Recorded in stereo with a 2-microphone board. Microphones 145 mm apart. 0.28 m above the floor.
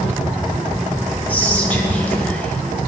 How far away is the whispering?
About 1.3 m.